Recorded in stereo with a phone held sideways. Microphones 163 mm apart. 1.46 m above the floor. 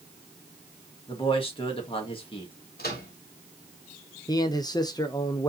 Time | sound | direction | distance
1.1 | a man speaking | 35° left (ahead or behind) | 2 m
2.8 | a microwave | 75° left (ahead or behind) | 2.5 m
4.3 | a man speaking | 25° left (ahead or behind) | 0.8 m